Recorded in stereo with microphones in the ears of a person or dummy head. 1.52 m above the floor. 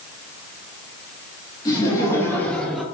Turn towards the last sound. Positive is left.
turn(degrees=-5)  # may be behind; listen again after turning